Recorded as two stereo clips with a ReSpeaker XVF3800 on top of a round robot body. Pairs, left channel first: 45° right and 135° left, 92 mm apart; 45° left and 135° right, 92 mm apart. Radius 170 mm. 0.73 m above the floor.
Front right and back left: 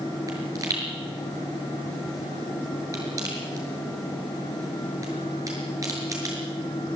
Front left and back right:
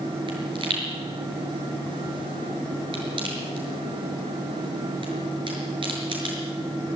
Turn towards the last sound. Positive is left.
turn(degrees=-170)